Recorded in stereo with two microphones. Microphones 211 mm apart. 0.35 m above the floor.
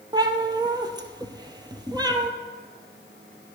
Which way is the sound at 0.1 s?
20° right (ahead or behind).